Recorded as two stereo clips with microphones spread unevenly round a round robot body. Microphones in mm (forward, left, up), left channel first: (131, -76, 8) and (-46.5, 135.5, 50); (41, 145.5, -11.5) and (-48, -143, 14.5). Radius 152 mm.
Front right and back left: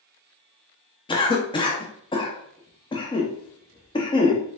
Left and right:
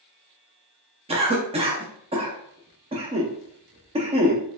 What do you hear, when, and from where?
1.1 s a cough: 50° right, 0.6 m